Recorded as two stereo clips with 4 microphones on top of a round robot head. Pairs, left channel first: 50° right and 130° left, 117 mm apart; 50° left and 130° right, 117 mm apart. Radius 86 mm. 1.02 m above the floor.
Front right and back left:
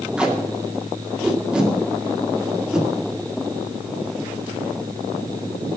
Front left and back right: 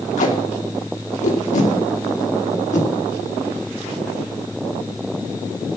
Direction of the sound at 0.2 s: 45° left.